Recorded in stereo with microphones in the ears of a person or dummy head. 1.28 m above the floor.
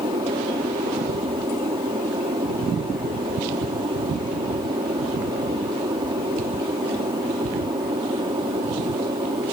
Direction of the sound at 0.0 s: 20° right (ahead or behind).